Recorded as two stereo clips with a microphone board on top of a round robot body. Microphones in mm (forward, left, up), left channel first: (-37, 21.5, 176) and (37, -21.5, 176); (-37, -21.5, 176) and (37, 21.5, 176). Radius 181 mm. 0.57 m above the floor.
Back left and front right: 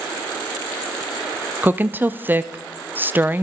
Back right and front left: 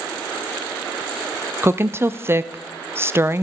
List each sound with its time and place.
1.6 s a woman speaking: 10° left, 0.6 m